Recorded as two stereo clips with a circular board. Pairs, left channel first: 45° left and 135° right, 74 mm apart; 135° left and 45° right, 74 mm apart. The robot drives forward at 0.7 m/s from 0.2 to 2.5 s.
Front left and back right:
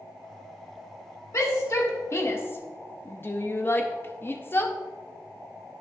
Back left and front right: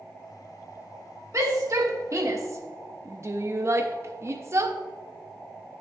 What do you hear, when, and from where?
1.3 s a shout: straight ahead, 1.3 m; by 4.8 s 5° right, 0.5 m